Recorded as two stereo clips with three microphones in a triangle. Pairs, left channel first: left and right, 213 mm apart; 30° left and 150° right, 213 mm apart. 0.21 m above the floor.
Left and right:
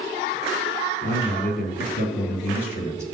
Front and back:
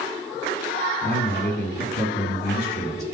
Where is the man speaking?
65° left, 4 m; by 3.0 s 60° left, 3 m.